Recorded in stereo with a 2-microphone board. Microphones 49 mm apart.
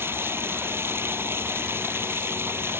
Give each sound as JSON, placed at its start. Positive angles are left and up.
{"t": 0.0, "sound": "running water", "side_deg": -55}